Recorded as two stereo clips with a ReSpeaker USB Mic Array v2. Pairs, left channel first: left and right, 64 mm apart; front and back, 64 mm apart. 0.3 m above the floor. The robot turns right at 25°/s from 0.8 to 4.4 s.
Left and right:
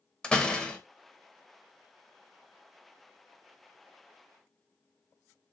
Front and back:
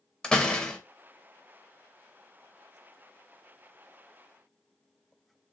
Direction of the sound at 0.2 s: 50° left.